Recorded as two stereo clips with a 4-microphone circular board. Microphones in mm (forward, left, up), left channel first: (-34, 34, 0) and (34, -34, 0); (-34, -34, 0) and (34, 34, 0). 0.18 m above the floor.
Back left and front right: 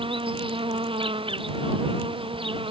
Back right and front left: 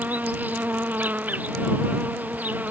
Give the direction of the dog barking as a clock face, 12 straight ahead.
I don't hear a dog barking.